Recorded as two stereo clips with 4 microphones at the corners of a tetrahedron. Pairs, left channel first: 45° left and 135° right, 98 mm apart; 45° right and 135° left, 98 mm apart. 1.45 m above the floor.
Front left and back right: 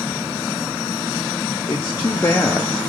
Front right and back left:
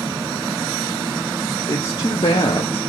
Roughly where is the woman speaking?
Ahead.